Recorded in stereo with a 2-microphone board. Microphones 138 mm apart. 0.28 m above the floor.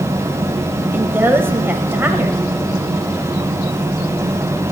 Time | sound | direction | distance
0.9 | a woman speaking | 15° right (ahead or behind) | 1.0 m